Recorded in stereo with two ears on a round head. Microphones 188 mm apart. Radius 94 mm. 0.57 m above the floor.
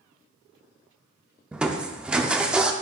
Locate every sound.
1.5 s crushing: 5° right (ahead or behind), 0.5 m